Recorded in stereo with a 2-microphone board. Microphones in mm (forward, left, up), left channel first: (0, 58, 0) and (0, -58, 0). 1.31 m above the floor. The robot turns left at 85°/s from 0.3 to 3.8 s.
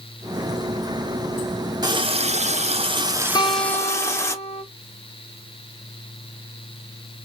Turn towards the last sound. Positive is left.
turn(degrees=100)